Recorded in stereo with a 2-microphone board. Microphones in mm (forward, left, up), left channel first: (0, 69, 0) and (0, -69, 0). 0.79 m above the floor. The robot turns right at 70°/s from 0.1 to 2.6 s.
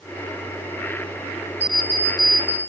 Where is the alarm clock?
15° right, 1.5 m; by 2.6 s 55° left, 1.5 m.